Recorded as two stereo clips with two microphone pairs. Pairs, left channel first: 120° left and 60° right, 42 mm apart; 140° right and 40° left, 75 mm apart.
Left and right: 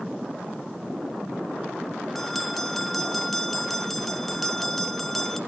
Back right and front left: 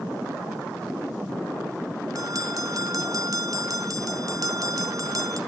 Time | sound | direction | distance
2.1 | a bell | 35° left | 1.1 m